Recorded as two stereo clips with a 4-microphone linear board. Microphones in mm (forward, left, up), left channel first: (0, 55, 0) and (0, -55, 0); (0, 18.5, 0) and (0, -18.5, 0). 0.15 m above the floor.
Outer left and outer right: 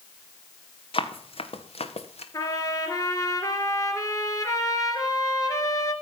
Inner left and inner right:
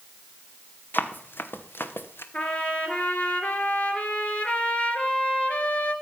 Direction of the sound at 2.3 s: 35° left (ahead or behind).